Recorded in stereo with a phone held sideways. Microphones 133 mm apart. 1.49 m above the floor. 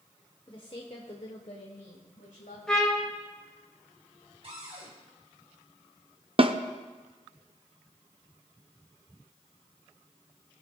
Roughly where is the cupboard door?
Right.